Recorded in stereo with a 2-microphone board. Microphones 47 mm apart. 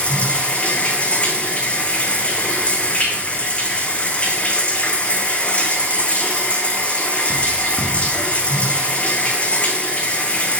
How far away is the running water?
About 1.4 m.